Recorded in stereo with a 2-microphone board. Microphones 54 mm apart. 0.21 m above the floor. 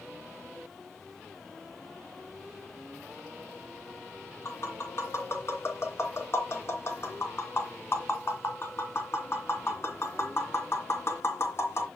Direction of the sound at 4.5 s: 50° left (ahead or behind).